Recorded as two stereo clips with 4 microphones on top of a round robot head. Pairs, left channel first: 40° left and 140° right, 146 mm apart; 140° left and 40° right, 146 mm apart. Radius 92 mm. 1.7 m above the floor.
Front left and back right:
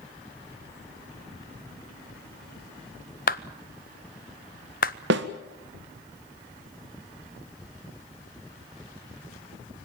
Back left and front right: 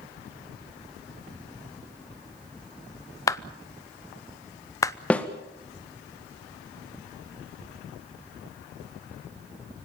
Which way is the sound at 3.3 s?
70° left.